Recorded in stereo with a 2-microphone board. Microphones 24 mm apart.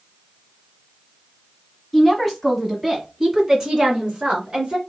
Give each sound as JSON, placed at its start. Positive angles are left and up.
{"t": 1.9, "sound": "a woman speaking", "side_deg": 10, "distance_m": 1.5}